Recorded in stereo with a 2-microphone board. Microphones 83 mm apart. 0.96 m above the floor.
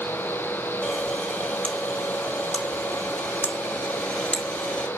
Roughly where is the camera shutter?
Centre.